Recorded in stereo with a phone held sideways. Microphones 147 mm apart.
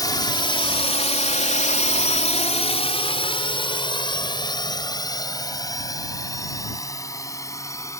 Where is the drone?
25° left (ahead or behind); by 8.0 s 20° left (ahead or behind).